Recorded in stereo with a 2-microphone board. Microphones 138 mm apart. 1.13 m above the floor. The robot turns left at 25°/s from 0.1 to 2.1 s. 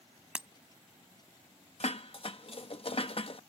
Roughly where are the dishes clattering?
Left.